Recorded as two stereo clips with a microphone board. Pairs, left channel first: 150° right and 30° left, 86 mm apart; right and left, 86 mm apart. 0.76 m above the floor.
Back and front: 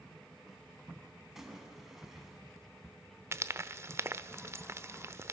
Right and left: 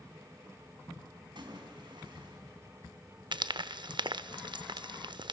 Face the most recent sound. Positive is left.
turn(degrees=85)